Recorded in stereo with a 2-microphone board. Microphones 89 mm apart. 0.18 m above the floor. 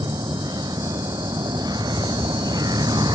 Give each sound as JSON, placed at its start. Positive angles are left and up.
{"t": 0.0, "sound": "a vehicle", "side_deg": -50}